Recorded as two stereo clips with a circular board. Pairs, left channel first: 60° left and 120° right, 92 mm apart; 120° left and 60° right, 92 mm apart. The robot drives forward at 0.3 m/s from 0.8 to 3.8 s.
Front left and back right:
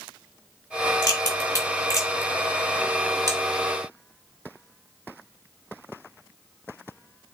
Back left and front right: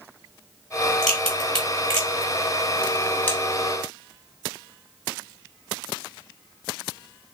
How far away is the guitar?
No guitar in this recording.